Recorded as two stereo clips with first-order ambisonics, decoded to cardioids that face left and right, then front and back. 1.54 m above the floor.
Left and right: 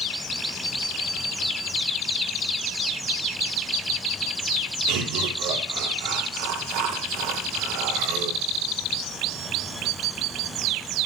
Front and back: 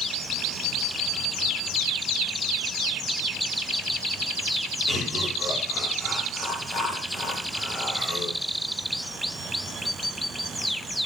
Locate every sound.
4.9 s laughter: 95° right, 5 m